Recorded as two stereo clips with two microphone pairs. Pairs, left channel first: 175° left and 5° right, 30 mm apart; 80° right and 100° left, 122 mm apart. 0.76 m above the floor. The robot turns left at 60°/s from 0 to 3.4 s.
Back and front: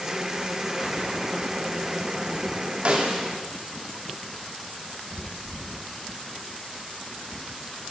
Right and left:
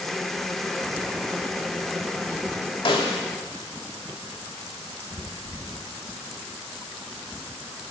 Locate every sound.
2.9 s a snare drum: 45° right, 1.9 m; by 3.2 s 70° right, 1.9 m